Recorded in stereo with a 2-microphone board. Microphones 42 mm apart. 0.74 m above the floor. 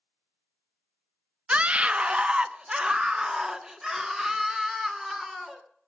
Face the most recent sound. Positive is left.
turn(degrees=-10)  # may be behind; listen again after turning